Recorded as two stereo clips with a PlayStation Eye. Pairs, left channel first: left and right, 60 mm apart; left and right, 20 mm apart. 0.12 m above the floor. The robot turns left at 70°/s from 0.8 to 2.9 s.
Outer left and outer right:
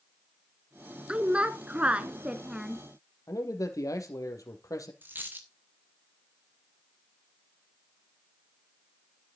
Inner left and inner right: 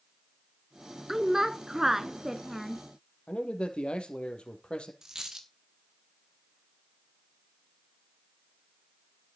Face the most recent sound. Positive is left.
turn(degrees=-30)  # may be behind; listen again after turning